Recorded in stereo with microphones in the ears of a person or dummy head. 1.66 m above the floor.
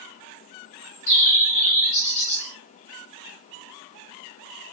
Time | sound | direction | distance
0.6 | a bird | 45° left (ahead or behind) | 1.4 m